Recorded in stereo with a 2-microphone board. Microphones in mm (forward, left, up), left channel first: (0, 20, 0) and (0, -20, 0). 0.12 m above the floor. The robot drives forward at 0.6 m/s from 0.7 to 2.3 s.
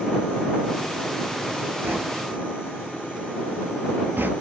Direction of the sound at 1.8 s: 60° right (ahead or behind).